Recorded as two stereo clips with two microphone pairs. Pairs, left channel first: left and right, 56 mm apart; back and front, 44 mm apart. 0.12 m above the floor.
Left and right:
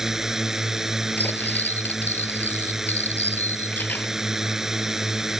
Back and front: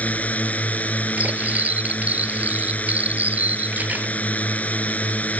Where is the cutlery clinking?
45° left.